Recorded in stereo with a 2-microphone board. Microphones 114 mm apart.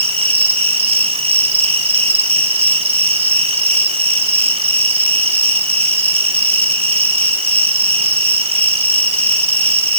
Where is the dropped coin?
I don't hear a dropped coin.